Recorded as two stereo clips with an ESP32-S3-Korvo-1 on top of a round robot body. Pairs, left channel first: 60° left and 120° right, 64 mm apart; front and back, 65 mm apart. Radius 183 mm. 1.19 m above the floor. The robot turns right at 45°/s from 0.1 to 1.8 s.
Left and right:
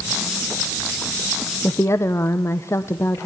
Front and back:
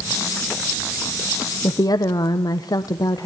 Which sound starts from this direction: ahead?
A woman speaking, at 1.6 s.